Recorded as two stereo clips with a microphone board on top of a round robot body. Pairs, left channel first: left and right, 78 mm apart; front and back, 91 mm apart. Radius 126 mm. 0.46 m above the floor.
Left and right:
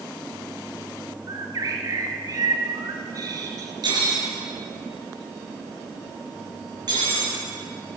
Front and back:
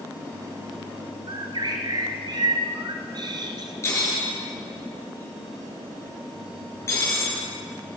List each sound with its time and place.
1.3 s a bird: 140° right, 1.5 m
3.8 s cutlery clinking: 60° right, 6.5 m